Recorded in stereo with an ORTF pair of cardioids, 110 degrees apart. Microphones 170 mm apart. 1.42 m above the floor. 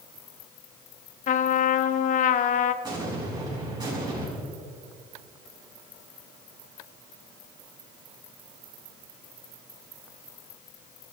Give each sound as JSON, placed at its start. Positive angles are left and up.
{"t": 1.3, "sound": "a trumpet", "azimuth_deg": 50, "distance_m": 0.7}
{"t": 2.8, "sound": "an explosion", "azimuth_deg": -25, "distance_m": 6.0}